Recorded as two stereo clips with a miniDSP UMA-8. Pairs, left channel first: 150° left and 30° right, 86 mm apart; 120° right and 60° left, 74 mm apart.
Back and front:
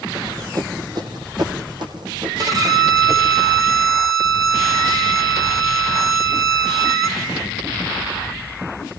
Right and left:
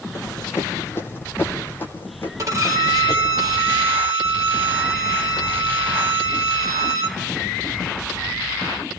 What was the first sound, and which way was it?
Running footsteps, 75° right.